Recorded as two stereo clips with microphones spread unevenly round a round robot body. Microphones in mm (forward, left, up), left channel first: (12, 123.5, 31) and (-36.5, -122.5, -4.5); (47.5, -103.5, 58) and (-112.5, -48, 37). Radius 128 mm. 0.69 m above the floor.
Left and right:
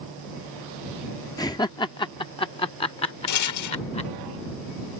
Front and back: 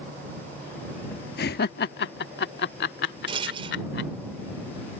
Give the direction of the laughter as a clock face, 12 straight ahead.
12 o'clock.